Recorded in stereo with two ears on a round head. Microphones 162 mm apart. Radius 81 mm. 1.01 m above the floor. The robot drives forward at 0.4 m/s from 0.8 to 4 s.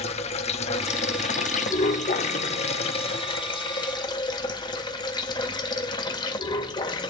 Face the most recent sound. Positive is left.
turn(degrees=25)  # may be behind; listen again after turning